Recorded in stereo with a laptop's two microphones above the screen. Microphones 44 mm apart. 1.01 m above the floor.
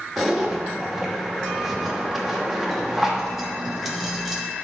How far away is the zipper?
About 1.0 m.